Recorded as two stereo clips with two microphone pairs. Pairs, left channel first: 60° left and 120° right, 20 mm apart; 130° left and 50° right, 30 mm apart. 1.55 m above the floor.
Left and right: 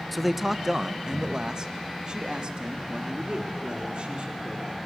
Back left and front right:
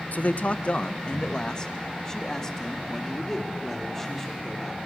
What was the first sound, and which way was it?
A man speaking, 150° left.